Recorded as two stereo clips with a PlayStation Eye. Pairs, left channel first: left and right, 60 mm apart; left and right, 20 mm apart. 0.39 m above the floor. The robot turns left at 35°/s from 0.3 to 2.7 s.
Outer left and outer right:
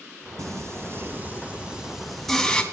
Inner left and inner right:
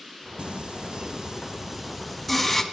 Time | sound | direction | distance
0.4 | singing | 115° right | 1.6 m